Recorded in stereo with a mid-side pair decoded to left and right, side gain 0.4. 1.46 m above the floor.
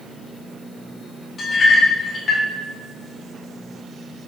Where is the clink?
50° left, 1.4 m.